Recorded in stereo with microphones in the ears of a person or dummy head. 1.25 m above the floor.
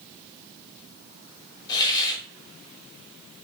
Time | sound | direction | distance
1.7 | a hiss | 20° left (ahead or behind) | 0.7 m